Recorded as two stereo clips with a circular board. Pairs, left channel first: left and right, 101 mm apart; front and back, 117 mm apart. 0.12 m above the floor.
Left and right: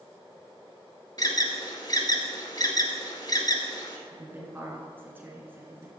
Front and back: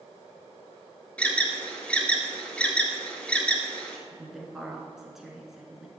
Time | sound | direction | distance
1.2 | an alarm | 75° left | 1.1 m
4.1 | a woman speaking | 100° right | 1.3 m